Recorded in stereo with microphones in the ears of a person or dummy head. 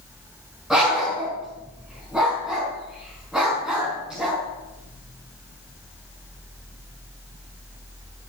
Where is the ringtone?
I don't hear a ringtone.